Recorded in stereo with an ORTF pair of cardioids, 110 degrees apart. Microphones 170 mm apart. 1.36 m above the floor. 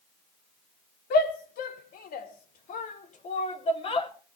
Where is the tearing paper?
I don't hear tearing paper.